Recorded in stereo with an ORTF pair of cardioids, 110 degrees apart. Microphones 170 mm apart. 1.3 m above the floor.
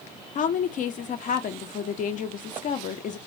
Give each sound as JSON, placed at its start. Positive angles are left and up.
{"t": 0.3, "sound": "a woman speaking", "azimuth_deg": 50, "distance_m": 0.8}